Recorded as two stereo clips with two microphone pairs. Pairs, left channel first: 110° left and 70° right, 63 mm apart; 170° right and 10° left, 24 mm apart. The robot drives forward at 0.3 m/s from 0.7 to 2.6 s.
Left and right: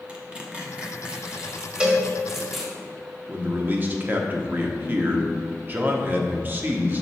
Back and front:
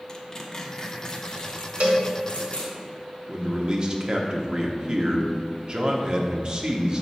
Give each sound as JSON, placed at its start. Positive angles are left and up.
{"t": 0.1, "sound": "tearing paper", "azimuth_deg": -125, "distance_m": 0.9}
{"t": 1.8, "sound": "a cowbell", "azimuth_deg": -5, "distance_m": 1.4}
{"t": 3.3, "sound": "a man speaking", "azimuth_deg": -30, "distance_m": 0.8}